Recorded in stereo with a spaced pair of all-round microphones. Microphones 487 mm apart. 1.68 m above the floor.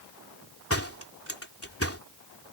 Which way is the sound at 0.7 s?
25° left (ahead or behind).